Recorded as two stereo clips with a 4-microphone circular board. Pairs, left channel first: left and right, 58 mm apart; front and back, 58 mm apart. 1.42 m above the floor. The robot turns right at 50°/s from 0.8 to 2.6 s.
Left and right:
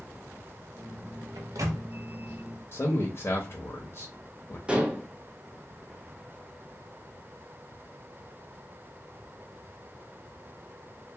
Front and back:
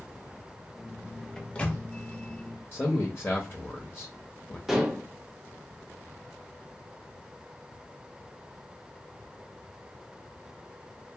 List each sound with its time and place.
1.4 s a microwave: 85° right, 0.5 m; by 1.8 s 60° right, 0.5 m
2.7 s a man speaking: 50° left, 0.7 m
4.7 s dishes clattering: 110° right, 0.6 m